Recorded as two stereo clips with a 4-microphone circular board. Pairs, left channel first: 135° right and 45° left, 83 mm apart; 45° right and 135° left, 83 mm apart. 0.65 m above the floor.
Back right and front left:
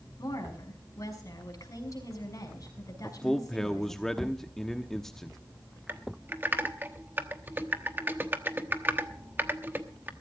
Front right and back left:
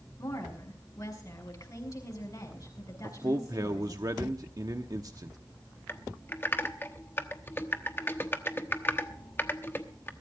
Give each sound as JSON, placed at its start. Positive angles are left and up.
{"t": 0.2, "sound": "a woman speaking", "azimuth_deg": -90, "distance_m": 6.0}
{"t": 3.0, "sound": "a man speaking", "azimuth_deg": 140, "distance_m": 1.0}
{"t": 5.9, "sound": "typing on a keyboard", "azimuth_deg": 0, "distance_m": 1.0}